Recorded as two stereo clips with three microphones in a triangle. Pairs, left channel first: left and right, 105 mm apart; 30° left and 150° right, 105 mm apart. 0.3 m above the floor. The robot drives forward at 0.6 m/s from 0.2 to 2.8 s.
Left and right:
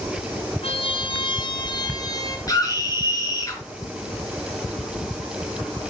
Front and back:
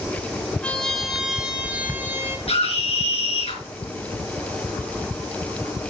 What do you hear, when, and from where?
0.6 s a trumpet: 110° left, 1.1 m; by 2.4 s 145° left, 1.7 m
2.5 s a scream: 35° left, 4 m; by 3.6 s 40° left, 3.5 m